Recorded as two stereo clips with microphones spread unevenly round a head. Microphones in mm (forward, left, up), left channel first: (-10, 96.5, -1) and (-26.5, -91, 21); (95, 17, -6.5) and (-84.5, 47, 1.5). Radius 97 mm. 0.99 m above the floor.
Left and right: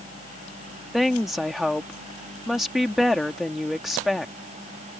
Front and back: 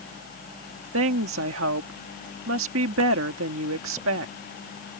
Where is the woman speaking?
175° left.